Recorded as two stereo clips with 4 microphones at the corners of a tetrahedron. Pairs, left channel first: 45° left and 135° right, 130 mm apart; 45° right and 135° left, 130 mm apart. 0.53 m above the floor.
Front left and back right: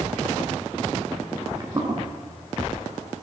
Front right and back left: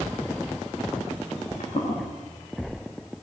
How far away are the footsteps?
About 8 m.